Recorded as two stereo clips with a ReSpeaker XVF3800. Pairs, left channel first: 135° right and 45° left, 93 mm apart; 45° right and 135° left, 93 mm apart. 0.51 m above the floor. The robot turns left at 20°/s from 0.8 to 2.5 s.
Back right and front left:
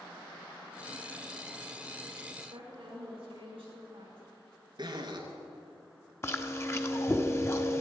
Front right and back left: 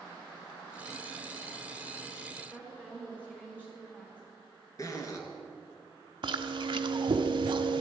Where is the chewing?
165° left, 0.8 m.